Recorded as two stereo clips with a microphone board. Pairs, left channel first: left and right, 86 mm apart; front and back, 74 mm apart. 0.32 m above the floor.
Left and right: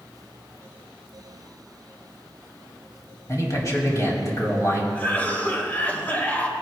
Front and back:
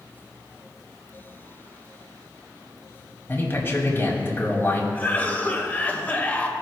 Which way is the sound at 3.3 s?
50° left.